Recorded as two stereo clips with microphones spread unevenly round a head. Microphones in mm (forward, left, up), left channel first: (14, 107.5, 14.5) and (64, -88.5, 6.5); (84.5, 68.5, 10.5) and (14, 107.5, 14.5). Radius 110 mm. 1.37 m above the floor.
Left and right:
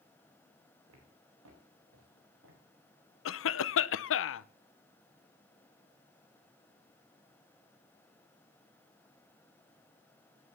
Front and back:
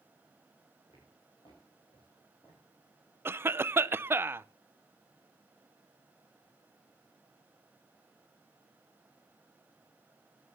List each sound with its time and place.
0.9 s footsteps: 95° right, 6 m; by 2.6 s 70° right, 6.5 m
3.2 s a cough: 90° left, 0.8 m